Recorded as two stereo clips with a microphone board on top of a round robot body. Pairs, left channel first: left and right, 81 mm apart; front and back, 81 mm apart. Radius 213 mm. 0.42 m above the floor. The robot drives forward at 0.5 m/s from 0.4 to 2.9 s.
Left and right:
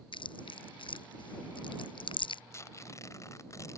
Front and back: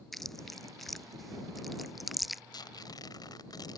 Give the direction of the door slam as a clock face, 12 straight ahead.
No door slam in this recording.